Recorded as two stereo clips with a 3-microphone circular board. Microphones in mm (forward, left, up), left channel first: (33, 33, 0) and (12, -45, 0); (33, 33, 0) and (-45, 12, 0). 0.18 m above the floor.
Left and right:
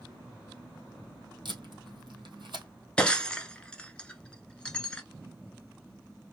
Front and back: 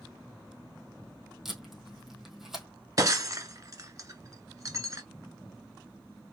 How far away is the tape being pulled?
About 1.8 m.